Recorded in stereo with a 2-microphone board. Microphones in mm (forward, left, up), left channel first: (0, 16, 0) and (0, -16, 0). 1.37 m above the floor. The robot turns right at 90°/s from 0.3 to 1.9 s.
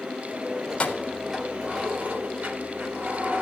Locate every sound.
0.7 s keys jangling: 135° left, 3.5 m; by 3.4 s 115° right, 3.5 m